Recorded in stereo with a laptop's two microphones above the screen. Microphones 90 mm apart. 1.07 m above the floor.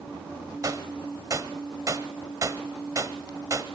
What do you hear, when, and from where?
0.6 s a gunshot: 35° right (ahead or behind), 1.1 m